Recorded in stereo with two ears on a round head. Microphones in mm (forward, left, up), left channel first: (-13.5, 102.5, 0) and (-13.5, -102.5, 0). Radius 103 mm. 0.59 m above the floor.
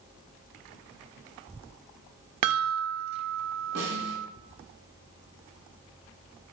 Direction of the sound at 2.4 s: 75° right (ahead or behind).